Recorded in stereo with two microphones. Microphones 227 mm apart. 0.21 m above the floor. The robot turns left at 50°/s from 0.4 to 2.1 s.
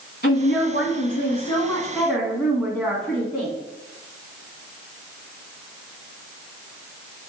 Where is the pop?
No pop in this recording.